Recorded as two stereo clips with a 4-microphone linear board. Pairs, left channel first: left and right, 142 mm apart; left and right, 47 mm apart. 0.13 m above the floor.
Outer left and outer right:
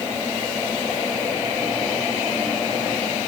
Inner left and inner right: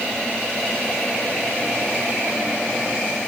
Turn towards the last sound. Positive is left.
No sound to turn to.